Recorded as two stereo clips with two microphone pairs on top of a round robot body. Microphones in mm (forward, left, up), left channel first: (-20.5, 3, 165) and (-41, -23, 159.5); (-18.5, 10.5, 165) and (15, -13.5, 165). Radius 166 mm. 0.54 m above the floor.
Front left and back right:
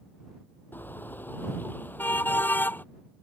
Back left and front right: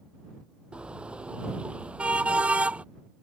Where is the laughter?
No laughter in this recording.